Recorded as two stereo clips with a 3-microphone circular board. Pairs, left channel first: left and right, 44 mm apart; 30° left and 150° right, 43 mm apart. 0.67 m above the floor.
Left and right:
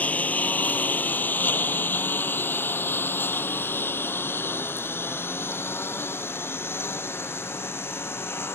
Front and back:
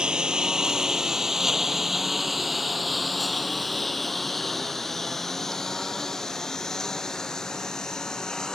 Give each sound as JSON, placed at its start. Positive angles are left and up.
{"t": 0.0, "sound": "a lawn mower", "azimuth_deg": 145}